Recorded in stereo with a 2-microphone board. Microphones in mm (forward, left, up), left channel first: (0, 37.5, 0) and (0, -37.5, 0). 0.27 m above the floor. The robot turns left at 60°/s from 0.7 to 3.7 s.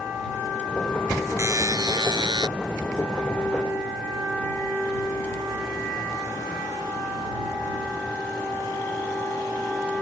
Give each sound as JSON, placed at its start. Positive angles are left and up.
{"t": 1.4, "sound": "a buzzer", "azimuth_deg": -40}